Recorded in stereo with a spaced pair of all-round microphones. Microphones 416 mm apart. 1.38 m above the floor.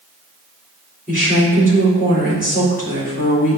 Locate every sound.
1.1 s a woman speaking: 20° left (ahead or behind), 3.5 m